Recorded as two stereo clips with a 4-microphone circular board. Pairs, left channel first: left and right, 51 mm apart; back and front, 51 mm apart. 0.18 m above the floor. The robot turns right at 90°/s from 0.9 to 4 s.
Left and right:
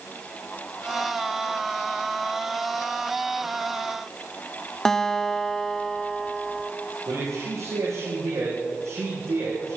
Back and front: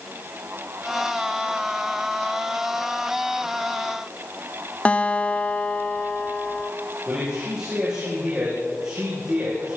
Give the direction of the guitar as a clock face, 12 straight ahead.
7 o'clock.